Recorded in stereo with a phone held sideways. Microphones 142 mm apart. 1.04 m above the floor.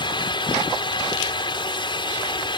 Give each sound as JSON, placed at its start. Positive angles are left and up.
{"t": 0.0, "sound": "a fan", "side_deg": 35}